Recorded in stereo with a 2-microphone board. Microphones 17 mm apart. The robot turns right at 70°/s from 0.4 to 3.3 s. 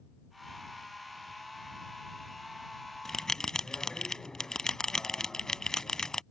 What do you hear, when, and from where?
3.0 s a bell: 25° left (ahead or behind); by 6.2 s 40° left (ahead or behind)